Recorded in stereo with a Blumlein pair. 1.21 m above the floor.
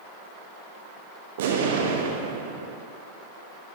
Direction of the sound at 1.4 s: 55° right.